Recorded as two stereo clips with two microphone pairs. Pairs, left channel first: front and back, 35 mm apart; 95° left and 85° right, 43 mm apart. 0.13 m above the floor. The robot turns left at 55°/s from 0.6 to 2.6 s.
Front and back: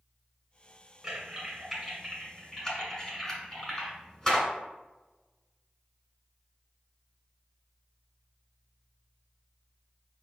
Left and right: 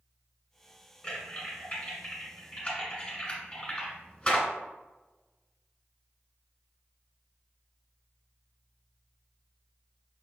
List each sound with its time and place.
1.0 s typing on a keyboard: 145° left, 1.7 m; by 4.5 s 60° left, 1.7 m